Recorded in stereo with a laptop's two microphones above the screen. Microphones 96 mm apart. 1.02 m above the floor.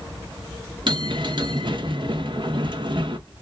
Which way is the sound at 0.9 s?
55° right (ahead or behind).